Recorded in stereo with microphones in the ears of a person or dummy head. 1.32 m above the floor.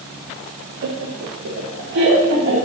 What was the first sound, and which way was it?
Laughter, 75° right (ahead or behind).